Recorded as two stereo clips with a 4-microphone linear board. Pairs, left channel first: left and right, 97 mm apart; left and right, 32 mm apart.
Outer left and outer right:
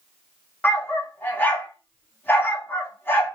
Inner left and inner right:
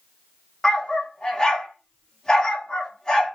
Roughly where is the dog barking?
Left.